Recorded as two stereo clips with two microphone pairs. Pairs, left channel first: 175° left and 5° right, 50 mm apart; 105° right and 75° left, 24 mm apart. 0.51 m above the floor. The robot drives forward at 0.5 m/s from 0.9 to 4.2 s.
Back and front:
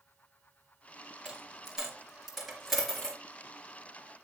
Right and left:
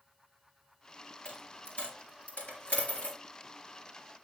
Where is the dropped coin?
80° right, 3.5 m; by 3.2 s 100° right, 3.5 m.